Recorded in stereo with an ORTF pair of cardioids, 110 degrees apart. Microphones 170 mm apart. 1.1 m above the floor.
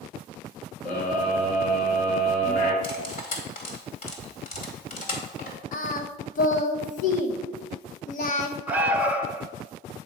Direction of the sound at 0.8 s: 55° left.